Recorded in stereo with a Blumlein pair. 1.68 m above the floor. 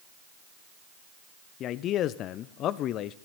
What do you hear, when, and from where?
1.6 s a man speaking: 35° left, 0.7 m